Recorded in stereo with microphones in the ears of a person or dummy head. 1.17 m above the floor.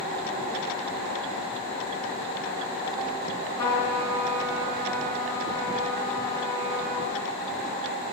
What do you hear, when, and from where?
3.6 s a trumpet: 20° left (ahead or behind), 4 m